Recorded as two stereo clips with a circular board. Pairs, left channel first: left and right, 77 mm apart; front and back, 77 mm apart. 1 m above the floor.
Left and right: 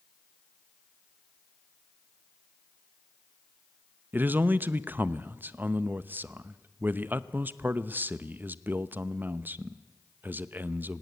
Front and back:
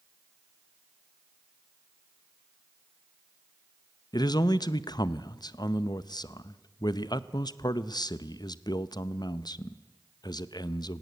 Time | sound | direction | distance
4.1 | a man speaking | 25° right | 0.6 m